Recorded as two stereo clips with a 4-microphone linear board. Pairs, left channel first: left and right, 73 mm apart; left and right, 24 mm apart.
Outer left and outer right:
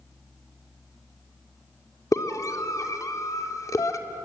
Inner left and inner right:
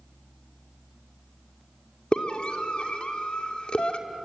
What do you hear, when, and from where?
2.1 s a scream: 50° left (ahead or behind), 1.9 m